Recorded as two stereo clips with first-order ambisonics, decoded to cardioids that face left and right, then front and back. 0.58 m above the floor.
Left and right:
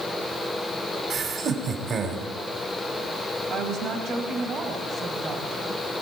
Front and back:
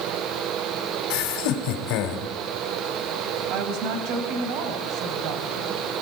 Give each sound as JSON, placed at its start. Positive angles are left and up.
{"t": 1.1, "sound": "laughter", "azimuth_deg": -25, "distance_m": 3.0}
{"t": 3.5, "sound": "a woman speaking", "azimuth_deg": -150, "distance_m": 3.5}